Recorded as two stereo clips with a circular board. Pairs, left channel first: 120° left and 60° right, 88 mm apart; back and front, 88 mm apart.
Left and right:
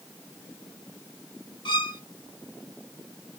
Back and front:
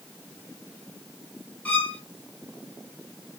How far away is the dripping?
No dripping in this recording.